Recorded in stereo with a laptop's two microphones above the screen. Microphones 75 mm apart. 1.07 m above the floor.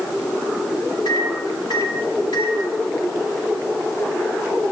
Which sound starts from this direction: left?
A microwave, at 1.1 s.